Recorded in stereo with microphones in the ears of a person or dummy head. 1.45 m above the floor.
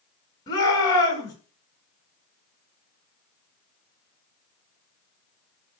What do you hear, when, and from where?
0.5 s a shout: 20° left (ahead or behind), 8.5 m